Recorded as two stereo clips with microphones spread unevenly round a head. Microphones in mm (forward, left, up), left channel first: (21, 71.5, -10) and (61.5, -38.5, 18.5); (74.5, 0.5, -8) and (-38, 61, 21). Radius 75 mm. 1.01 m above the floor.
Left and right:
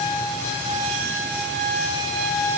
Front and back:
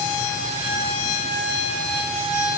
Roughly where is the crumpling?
I don't hear crumpling.